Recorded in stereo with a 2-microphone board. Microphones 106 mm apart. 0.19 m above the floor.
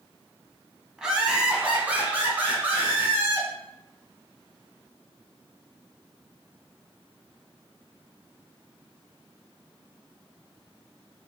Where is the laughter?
5° right (ahead or behind), 1.0 m; by 3.5 s 20° right (ahead or behind), 2 m.